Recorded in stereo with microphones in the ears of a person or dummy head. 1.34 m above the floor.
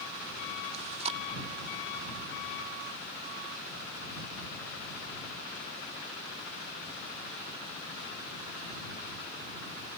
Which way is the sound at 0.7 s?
30° right (ahead or behind).